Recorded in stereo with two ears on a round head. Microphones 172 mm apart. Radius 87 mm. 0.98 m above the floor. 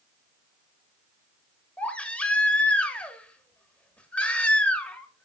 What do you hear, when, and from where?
1.8 s a baby crying: 10° left (ahead or behind), 1.6 m